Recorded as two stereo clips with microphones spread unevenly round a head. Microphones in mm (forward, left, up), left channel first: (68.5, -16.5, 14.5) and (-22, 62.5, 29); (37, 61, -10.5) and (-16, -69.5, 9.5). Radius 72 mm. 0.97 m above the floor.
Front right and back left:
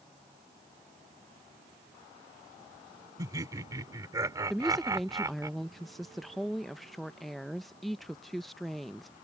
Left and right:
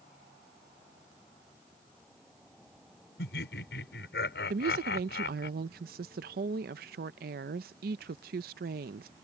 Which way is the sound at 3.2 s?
75° left.